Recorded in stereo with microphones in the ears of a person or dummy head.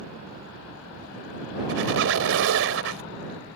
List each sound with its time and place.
1.7 s a squeak: 75° right (ahead or behind)